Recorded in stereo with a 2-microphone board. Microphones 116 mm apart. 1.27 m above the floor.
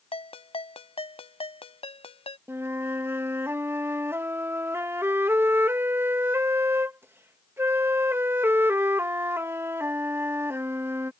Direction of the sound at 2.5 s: 20° right (ahead or behind).